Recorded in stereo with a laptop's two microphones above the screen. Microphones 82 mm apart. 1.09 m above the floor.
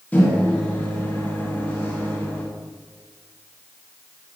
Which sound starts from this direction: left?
A microwave, at 0.1 s.